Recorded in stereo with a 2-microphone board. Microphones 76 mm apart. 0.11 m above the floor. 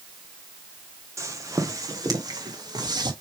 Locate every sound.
1.2 s footsteps: 40° right (ahead or behind), 2 m; by 3.1 s 60° right (ahead or behind), 3 m